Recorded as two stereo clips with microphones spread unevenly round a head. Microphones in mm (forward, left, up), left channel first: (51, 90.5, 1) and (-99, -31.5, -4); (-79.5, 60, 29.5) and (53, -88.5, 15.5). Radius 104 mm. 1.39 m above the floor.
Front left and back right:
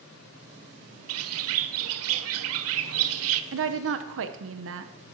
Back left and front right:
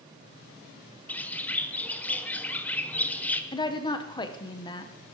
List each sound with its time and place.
1.1 s a bird: 145° right, 0.6 m
3.5 s a woman speaking: 160° right, 0.9 m